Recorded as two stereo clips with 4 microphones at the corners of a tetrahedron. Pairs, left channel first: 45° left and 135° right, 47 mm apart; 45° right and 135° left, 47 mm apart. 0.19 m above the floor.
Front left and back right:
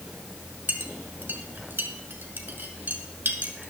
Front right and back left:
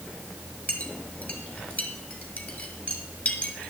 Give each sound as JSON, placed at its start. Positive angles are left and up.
{"t": 0.7, "sound": "a clink", "azimuth_deg": -95, "distance_m": 2.0}